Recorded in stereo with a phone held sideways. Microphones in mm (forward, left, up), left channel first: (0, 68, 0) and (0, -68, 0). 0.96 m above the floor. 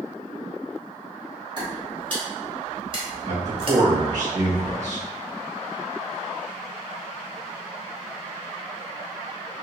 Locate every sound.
1.6 s footsteps: 35° right (ahead or behind), 1.7 m; by 3.8 s 40° right (ahead or behind), 1.2 m
3.2 s a man speaking: 55° right (ahead or behind), 1.5 m